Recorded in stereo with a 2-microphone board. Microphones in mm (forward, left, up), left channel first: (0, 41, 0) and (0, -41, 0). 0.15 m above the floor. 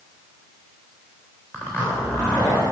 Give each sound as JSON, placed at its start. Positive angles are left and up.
{"t": 1.5, "sound": "a zipper", "side_deg": 30, "distance_m": 3.5}